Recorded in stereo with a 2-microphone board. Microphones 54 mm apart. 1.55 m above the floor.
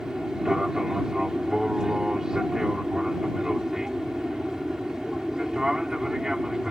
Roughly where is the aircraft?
Centre.